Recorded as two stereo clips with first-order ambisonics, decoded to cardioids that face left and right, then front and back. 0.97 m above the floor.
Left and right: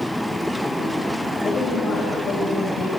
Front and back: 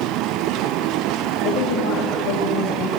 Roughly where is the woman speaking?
Ahead.